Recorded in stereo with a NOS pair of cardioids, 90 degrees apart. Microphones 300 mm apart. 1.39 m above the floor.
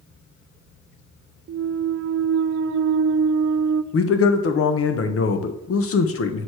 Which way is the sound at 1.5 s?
45° right.